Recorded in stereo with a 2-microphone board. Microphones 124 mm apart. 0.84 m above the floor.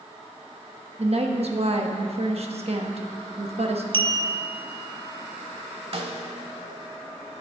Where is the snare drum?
55° right (ahead or behind), 1.1 m.